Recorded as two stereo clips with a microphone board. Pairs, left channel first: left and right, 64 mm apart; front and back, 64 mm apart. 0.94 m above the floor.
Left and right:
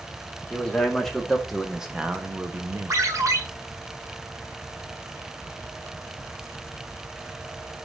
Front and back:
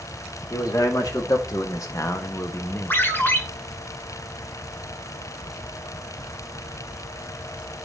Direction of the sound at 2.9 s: 55° right.